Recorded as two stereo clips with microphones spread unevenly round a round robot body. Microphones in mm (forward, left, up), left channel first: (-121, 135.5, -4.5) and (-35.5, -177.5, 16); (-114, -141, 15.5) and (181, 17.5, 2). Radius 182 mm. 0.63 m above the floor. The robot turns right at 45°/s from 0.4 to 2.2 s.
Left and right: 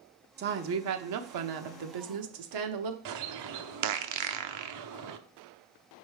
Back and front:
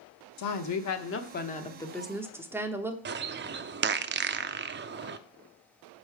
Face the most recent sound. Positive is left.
turn(degrees=-30)